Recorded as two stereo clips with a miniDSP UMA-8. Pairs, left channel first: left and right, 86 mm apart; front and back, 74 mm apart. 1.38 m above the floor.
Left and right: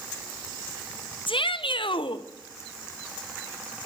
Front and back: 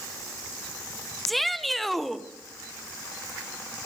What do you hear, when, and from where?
1.3 s a shout: 90° left, 0.8 m